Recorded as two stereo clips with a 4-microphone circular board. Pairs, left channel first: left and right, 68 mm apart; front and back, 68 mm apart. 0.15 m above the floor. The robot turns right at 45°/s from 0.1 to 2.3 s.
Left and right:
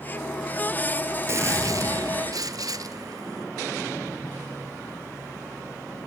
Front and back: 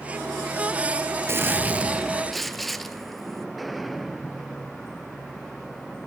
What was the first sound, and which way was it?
A gunshot, 135° right.